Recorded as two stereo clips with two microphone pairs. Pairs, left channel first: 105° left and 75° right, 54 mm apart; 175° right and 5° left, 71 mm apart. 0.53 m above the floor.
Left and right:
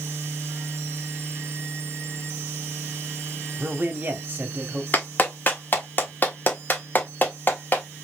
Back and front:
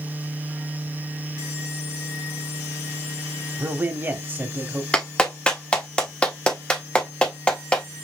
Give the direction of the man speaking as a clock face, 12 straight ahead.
1 o'clock.